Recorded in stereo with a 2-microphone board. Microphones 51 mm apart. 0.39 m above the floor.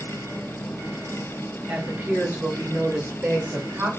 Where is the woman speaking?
35° right (ahead or behind), 1.9 m; by 3.9 s 50° right (ahead or behind), 2.0 m.